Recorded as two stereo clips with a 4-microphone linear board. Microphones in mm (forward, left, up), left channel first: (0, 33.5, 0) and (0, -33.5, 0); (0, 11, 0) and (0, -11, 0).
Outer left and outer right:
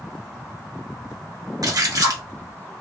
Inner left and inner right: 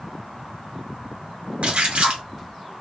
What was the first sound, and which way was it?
A splash, 65° right (ahead or behind).